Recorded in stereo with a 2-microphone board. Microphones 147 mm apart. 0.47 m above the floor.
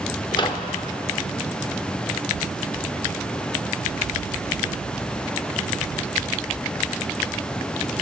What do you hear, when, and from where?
0.3 s a microwave: 35° left (ahead or behind), 1.0 m